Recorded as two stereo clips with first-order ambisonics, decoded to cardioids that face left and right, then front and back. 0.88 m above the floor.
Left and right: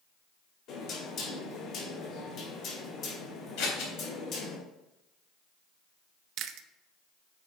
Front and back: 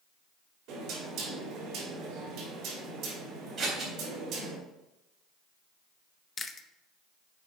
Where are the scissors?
110° left, 3.5 m.